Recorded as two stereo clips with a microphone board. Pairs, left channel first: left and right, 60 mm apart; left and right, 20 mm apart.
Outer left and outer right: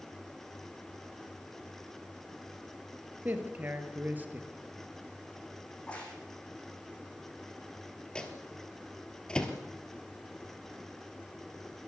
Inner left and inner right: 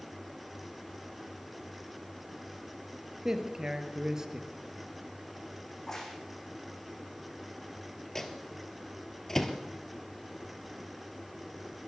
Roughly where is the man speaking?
Right.